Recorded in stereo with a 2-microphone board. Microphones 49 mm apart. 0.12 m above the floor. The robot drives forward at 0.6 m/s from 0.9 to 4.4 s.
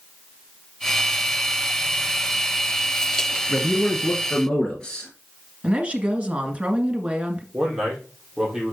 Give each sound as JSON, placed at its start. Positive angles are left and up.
{"t": 3.5, "sound": "a man speaking", "side_deg": 20, "distance_m": 1.3}
{"t": 5.6, "sound": "a woman speaking", "side_deg": -25, "distance_m": 1.5}
{"t": 7.5, "sound": "a man speaking", "side_deg": -15, "distance_m": 4.0}